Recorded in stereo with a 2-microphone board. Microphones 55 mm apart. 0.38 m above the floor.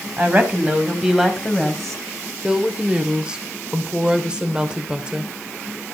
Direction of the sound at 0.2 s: 35° right (ahead or behind).